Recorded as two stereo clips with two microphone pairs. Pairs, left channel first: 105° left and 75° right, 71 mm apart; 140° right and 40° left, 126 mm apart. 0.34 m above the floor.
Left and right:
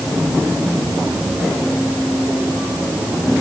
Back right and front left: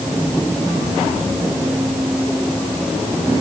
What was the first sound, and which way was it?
Only background noise.